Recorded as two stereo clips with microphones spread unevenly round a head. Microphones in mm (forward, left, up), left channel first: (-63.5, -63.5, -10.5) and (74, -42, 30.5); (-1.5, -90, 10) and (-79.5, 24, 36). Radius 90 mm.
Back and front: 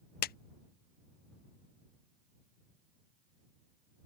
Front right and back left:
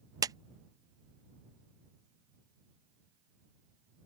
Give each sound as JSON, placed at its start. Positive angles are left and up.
{"t": 0.2, "sound": "a clap", "azimuth_deg": -170}